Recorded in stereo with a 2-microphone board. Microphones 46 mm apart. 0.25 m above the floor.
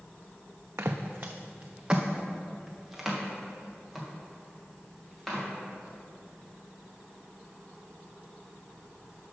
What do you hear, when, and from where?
0.8 s footsteps: 70° right (ahead or behind), 0.7 m; by 5.5 s 5° left (ahead or behind), 3.5 m